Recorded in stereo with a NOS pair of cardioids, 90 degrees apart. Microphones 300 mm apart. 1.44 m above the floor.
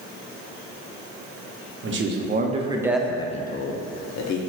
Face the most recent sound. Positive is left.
turn(degrees=70)